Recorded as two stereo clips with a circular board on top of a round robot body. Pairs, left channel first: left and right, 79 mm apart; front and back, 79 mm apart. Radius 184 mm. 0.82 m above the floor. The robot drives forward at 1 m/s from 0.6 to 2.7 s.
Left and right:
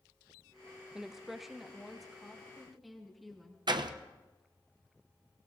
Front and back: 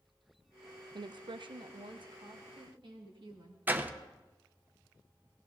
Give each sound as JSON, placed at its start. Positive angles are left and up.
{"t": 0.9, "sound": "a woman speaking", "azimuth_deg": -170, "distance_m": 0.5}
{"t": 3.7, "sound": "a door slam", "azimuth_deg": -115, "distance_m": 0.9}